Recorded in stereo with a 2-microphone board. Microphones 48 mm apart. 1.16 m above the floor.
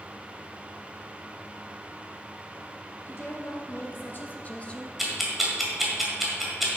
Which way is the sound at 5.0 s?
5° right (ahead or behind).